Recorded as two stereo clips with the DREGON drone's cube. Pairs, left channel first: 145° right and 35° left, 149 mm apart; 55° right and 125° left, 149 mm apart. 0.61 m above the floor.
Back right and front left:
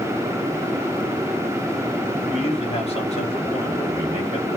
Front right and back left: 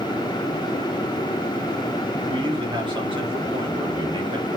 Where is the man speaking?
175° left, 2 m.